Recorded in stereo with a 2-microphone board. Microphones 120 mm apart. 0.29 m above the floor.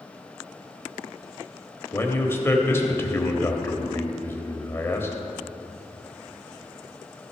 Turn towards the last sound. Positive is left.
turn(degrees=20)  # may be behind; listen again after turning